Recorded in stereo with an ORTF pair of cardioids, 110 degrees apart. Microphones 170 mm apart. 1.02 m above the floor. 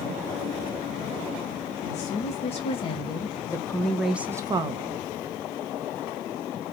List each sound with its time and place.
1.8 s a woman speaking: 45° left, 1.7 m; by 5.1 s 55° right, 0.8 m